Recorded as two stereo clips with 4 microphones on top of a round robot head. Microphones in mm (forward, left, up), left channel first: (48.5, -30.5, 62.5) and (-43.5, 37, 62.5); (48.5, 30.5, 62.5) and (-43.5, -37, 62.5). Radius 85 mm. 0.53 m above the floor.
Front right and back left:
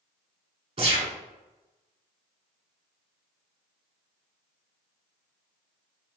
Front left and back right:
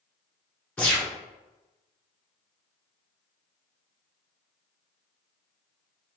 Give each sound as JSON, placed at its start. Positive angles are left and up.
{"t": 0.8, "sound": "a gunshot", "azimuth_deg": 115, "distance_m": 1.5}